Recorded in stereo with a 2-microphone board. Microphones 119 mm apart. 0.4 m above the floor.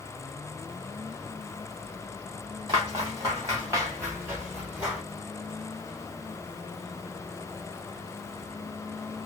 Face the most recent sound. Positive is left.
turn(degrees=-10)  # may be behind; listen again after turning